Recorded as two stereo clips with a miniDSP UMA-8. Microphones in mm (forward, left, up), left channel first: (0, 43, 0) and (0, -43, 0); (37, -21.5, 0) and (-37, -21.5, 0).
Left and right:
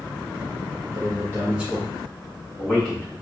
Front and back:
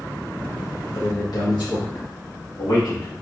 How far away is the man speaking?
About 0.6 m.